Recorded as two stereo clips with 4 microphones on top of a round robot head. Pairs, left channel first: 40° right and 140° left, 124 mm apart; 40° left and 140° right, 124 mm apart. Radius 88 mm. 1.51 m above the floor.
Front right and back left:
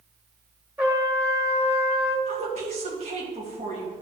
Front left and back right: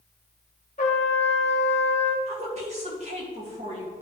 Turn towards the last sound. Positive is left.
turn(degrees=180)